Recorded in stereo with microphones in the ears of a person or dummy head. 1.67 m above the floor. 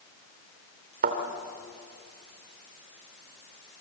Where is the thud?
55° right (ahead or behind), 2.5 m.